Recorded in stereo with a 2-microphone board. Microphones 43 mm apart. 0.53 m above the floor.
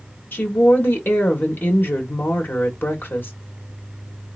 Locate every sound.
0.3 s a woman speaking: 55° left (ahead or behind), 1.5 m